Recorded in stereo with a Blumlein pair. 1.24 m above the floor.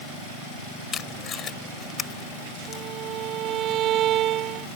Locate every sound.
0.9 s tape being pulled: 25° left
2.7 s a violin: 30° right